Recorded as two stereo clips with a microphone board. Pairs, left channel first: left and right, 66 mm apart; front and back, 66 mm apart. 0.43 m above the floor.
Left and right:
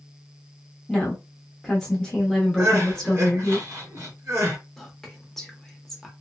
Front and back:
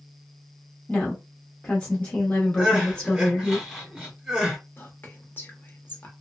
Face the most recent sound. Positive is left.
turn(degrees=10)